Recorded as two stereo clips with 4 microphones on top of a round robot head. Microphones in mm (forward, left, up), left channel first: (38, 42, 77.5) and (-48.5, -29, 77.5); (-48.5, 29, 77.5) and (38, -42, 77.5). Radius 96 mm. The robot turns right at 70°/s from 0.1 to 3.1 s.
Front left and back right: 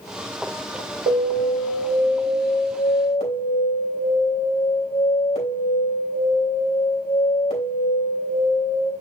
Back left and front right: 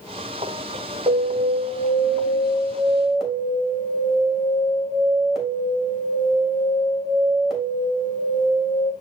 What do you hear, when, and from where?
1.1 s an alarm: 95° right, 3 m; by 8.9 s 50° left, 3 m